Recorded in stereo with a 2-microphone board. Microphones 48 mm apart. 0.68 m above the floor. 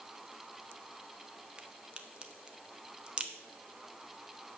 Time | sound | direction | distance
1.6 | a crack | 20° right (ahead or behind) | 0.9 m